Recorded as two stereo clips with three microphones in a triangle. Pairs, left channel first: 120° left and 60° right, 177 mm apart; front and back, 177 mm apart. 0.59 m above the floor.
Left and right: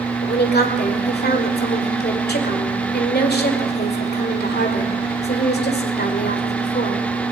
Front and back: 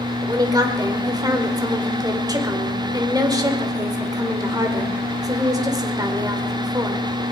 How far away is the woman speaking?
About 1.9 m.